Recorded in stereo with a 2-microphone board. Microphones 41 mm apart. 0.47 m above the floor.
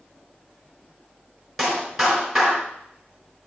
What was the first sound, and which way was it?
A clap, 5° right (ahead or behind).